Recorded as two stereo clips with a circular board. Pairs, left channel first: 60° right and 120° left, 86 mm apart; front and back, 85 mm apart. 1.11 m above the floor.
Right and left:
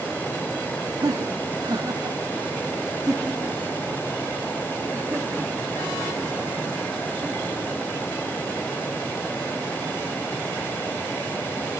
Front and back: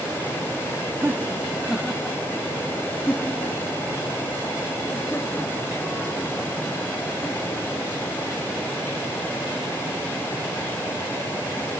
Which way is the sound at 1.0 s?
125° left.